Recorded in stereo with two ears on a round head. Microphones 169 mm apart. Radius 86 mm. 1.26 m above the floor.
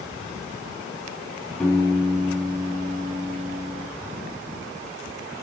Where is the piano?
5° left (ahead or behind), 6 m.